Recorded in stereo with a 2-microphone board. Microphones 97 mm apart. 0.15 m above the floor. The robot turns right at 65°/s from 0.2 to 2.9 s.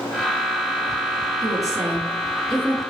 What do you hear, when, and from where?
1.4 s a woman speaking: 65° right, 1.6 m; by 2.8 s 25° left, 1.6 m